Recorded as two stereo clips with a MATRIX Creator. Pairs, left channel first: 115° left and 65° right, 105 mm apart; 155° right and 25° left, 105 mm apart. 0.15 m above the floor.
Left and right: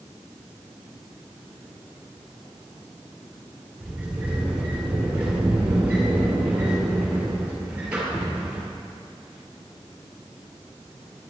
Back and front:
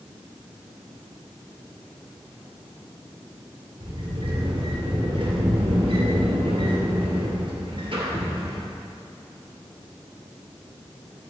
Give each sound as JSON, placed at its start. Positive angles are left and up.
{"t": 3.8, "sound": "a sliding door", "azimuth_deg": 10, "distance_m": 2.0}